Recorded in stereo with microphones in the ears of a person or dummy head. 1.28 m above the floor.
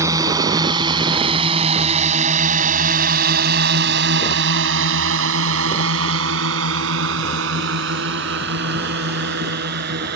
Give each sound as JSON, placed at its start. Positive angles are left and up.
{"t": 0.0, "sound": "a drone", "side_deg": -20}